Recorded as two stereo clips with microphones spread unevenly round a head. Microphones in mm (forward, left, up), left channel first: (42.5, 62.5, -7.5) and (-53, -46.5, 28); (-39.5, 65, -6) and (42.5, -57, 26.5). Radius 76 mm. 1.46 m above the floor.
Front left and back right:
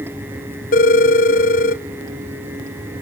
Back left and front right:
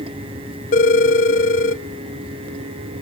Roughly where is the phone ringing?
Left.